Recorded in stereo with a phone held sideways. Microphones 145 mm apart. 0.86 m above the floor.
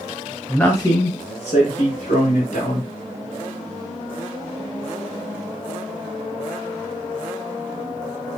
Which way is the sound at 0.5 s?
Centre (ahead or behind).